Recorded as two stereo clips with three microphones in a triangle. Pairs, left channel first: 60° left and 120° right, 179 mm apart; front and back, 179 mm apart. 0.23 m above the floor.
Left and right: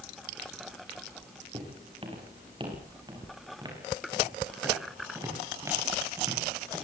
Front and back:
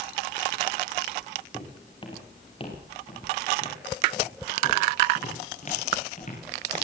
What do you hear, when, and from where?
1.5 s footsteps: 65° right, 8.5 m; by 6.8 s 45° right, 15.5 m